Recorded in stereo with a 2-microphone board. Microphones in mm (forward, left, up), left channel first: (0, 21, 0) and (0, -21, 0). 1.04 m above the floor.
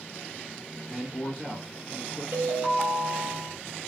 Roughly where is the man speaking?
Left.